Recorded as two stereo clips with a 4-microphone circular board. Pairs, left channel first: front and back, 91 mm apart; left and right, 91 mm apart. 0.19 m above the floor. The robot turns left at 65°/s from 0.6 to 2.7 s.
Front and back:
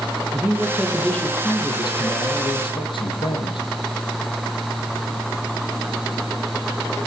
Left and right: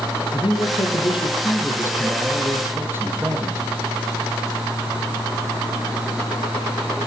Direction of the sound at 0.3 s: 110° left.